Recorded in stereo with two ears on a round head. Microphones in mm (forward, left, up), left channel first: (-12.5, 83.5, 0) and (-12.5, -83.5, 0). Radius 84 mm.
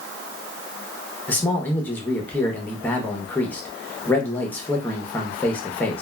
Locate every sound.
1.3 s a man speaking: 10° left (ahead or behind), 0.7 m